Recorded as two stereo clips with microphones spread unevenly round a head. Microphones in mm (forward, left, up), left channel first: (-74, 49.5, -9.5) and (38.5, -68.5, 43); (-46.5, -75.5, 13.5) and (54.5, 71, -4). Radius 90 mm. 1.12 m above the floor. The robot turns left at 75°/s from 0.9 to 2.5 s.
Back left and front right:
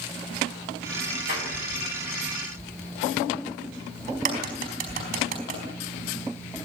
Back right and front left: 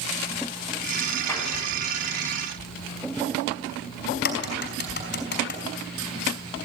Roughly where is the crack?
Right.